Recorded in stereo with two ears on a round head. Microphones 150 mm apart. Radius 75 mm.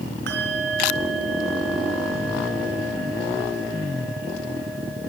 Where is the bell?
65° right (ahead or behind), 4.5 m.